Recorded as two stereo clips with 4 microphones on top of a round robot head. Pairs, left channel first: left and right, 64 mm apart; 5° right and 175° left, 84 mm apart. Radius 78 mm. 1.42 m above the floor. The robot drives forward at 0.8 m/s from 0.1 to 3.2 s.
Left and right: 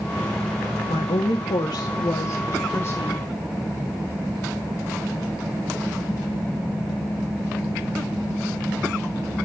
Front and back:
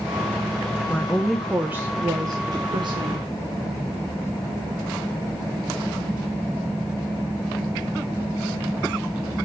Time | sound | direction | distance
0.9 | a woman speaking | 70° left | 1.0 m